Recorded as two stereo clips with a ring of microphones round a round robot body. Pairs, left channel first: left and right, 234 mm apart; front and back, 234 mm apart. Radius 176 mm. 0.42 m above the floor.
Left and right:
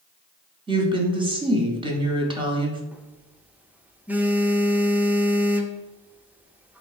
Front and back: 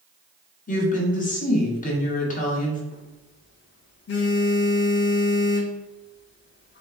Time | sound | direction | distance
0.7 | a woman speaking | 30° right | 1.0 m
2.9 | a phone buzzing | 5° right | 0.6 m